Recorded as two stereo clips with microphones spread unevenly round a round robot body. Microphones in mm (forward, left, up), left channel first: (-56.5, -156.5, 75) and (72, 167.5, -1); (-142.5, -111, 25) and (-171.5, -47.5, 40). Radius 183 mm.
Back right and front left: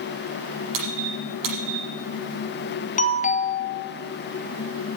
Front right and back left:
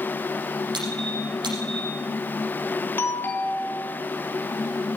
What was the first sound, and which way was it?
A squeak, 110° left.